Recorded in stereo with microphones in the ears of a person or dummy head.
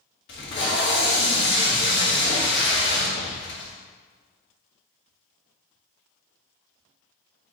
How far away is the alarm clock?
No alarm clock in this recording.